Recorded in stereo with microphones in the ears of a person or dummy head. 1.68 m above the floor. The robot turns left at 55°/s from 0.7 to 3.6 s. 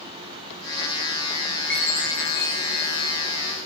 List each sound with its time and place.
1.7 s a chime: 175° left, 2 m; by 3.2 s 95° left, 2 m